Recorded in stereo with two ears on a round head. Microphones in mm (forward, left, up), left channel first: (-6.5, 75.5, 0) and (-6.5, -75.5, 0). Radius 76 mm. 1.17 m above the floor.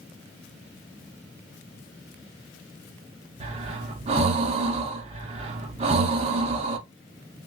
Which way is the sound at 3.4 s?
35° right (ahead or behind).